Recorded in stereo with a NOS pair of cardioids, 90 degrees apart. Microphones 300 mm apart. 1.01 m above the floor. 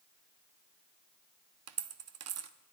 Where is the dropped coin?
60° right, 0.8 m.